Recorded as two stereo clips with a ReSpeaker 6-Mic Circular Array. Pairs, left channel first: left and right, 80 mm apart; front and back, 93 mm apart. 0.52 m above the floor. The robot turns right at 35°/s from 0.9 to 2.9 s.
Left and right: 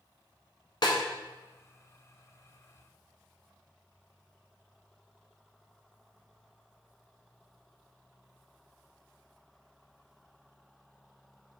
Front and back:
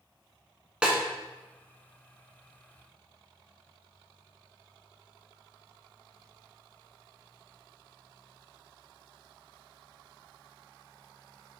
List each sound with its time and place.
0.8 s a snare drum: 100° left, 0.9 m; by 1.0 s 105° left, 0.9 m